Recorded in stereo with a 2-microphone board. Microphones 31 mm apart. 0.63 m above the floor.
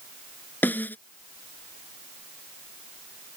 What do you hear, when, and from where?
0.6 s a snare drum: 80° left